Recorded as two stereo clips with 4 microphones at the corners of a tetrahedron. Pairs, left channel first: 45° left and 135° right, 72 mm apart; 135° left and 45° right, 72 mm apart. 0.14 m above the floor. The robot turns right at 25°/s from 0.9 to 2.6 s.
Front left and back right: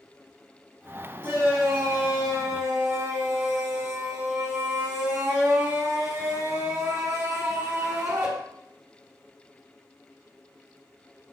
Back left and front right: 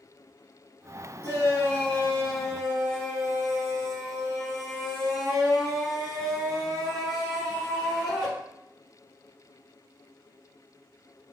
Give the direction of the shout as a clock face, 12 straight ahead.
6 o'clock.